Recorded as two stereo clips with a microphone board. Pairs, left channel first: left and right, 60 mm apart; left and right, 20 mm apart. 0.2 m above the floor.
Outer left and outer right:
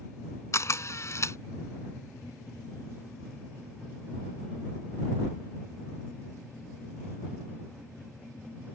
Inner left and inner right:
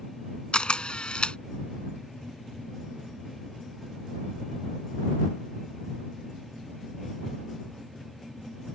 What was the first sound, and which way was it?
A camera shutter, 50° left (ahead or behind).